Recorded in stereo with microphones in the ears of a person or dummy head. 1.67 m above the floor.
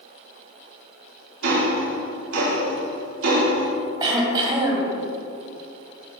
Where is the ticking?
65° right (ahead or behind), 3.5 m.